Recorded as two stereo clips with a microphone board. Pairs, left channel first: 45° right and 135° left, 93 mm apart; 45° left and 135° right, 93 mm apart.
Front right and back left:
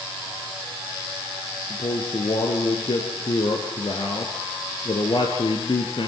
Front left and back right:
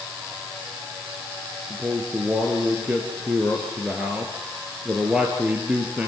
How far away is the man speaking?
About 2.5 m.